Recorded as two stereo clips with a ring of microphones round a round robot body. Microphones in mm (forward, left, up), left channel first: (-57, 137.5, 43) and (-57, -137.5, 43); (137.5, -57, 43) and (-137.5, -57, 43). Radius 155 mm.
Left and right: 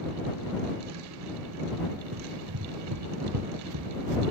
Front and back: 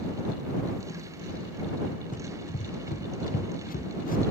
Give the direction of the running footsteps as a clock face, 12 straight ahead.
2 o'clock.